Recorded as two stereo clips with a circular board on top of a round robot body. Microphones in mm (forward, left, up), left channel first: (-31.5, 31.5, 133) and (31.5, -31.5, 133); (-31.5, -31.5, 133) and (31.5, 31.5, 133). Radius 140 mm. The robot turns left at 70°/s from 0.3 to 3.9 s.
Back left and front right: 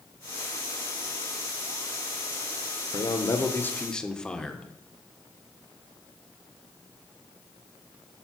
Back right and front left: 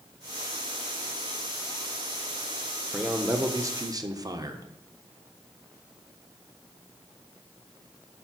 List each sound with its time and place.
2.9 s a man speaking: 125° left, 1.3 m; by 4.7 s 60° left, 1.3 m